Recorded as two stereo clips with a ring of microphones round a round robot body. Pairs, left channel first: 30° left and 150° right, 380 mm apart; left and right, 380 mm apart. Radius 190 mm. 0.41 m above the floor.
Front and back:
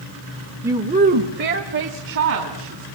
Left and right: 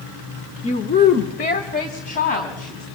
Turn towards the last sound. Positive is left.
turn(degrees=160)